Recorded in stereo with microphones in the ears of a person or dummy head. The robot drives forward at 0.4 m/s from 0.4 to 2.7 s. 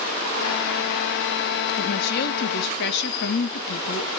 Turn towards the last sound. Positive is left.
turn(degrees=65)  # may be behind; listen again after turning